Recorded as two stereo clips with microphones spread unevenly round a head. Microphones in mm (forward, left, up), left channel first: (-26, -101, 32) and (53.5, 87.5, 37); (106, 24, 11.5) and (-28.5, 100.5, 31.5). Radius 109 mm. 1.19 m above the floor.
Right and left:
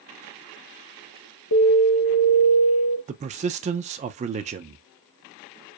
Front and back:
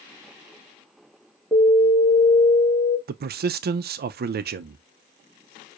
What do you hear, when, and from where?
1.5 s an alarm: 110° right, 1.2 m
3.1 s a man speaking: 125° left, 0.5 m